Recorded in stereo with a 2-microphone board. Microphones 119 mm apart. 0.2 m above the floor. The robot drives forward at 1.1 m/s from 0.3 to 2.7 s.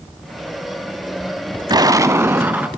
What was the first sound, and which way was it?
An explosion, 35° right (ahead or behind).